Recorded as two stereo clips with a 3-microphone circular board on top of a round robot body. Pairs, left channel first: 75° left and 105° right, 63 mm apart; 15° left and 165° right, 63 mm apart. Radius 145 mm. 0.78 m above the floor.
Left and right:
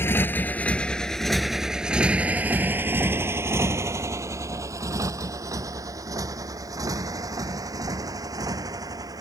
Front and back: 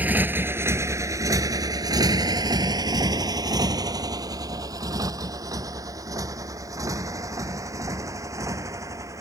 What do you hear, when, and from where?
0.0 s a motorcycle: 130° left; by 9.2 s 130° right